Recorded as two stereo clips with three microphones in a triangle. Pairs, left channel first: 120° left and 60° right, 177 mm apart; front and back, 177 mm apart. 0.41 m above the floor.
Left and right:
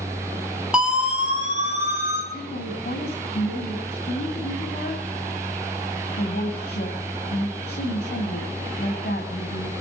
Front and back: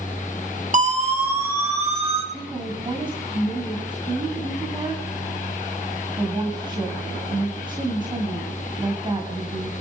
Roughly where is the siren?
Behind right.